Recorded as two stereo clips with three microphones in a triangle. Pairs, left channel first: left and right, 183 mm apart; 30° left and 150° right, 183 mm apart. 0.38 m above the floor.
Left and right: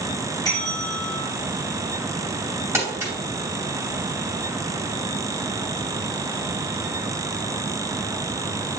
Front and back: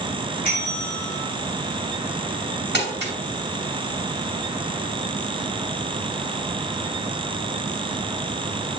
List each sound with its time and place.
0.4 s a bell: 25° left, 2.5 m
2.7 s crumpling: 165° right, 2.5 m